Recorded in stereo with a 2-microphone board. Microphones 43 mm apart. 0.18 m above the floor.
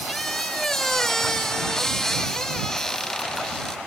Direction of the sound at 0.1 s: 15° left (ahead or behind).